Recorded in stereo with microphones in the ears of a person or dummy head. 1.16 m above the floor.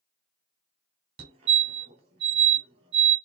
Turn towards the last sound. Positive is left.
turn(degrees=-35)  # may be behind; listen again after turning